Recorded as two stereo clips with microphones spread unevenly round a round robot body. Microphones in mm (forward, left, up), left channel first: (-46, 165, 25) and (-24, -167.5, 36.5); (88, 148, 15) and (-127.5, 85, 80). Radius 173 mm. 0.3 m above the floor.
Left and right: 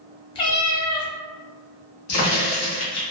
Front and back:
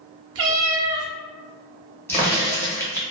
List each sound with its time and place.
0.3 s a cat meowing: 170° left, 0.7 m
2.1 s a crack: 75° left, 1.2 m